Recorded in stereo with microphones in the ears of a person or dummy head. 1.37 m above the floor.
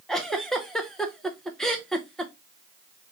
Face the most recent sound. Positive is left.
turn(degrees=0)  # may be behind; listen again after turning